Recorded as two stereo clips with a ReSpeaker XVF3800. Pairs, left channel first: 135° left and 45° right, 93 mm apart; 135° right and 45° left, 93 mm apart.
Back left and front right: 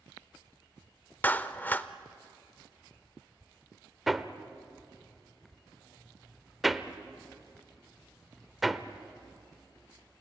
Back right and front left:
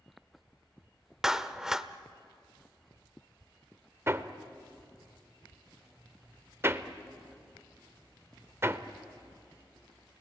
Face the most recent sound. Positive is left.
turn(degrees=45)